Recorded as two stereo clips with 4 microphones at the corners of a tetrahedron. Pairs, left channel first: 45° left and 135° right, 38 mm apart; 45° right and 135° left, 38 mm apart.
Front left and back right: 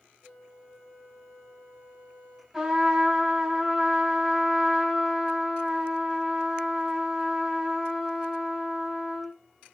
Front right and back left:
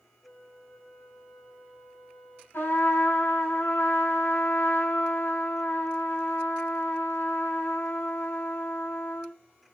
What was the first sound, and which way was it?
A flute, 10° left.